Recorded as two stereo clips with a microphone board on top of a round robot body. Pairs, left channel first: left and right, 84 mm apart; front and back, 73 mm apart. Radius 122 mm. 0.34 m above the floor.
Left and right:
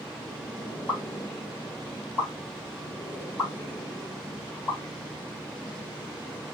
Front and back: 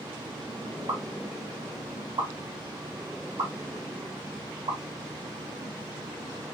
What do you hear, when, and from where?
0.9 s a pop: 160° left, 4 m